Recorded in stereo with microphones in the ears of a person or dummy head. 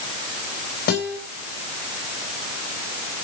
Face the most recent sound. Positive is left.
turn(degrees=55)  # may be behind; listen again after turning